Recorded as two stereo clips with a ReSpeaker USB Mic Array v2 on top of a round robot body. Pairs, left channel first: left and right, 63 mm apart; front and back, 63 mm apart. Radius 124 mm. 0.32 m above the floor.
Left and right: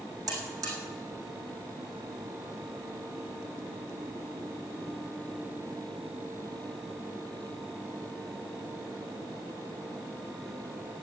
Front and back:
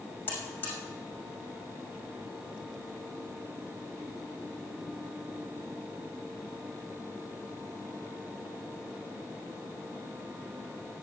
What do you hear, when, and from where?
0.3 s a buzzer: 60° right, 6 m